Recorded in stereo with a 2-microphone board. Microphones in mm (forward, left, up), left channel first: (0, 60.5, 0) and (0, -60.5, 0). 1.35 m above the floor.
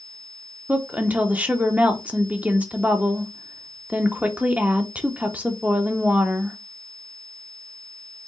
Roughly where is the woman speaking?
Centre.